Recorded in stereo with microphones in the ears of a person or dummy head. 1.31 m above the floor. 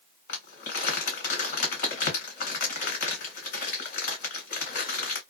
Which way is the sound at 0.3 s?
50° left (ahead or behind).